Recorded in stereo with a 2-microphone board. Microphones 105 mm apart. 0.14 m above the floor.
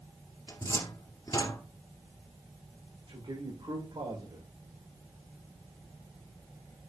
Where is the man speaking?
50° right (ahead or behind), 6 m.